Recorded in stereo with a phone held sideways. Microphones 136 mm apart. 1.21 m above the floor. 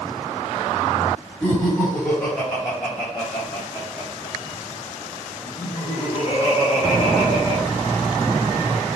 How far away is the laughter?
About 4.5 m.